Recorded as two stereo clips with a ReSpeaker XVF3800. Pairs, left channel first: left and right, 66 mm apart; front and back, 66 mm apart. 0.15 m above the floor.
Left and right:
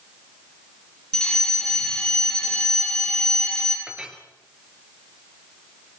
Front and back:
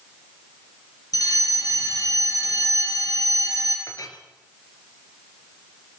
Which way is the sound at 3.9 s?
15° right.